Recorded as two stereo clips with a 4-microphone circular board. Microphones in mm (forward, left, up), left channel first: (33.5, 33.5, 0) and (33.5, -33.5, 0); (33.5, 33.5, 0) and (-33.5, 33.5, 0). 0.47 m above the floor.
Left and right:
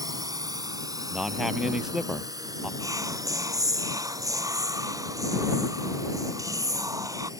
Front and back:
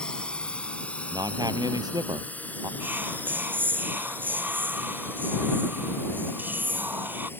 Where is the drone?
75° right; by 7.4 s 60° right.